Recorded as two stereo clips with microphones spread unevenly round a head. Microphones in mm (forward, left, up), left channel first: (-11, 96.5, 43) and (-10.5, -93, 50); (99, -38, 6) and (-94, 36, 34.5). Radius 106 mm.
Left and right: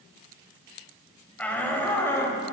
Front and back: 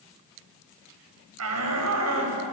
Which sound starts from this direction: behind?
A shout, at 1.4 s.